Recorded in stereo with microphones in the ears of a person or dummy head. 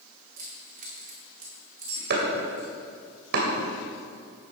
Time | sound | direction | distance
0.4 | keys jangling | 45° right (ahead or behind) | 1.8 m
2.1 | chopping | 55° right (ahead or behind) | 2.5 m